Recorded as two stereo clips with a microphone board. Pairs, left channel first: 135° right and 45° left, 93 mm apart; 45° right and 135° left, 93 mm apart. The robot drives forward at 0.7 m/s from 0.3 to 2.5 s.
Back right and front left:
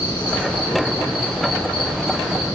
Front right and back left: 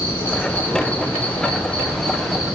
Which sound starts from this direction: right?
An insect, at 0.0 s.